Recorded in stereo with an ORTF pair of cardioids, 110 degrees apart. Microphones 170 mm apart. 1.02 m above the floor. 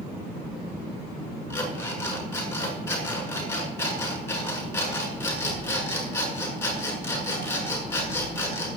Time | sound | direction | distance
1.5 | an alarm clock | 15° left | 8 m